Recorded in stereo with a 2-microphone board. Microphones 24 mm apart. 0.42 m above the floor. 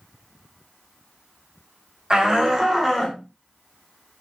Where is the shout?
35° right (ahead or behind), 1.5 m; by 3.2 s centre (ahead or behind), 1.3 m.